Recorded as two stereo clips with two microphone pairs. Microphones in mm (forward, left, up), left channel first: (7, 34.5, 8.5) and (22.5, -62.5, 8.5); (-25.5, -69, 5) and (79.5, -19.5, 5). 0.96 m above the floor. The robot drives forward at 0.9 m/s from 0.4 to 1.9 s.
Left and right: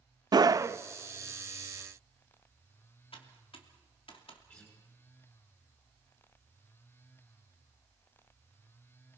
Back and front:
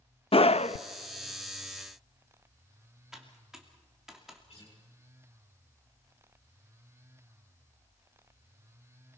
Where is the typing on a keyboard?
110° left, 2.5 m.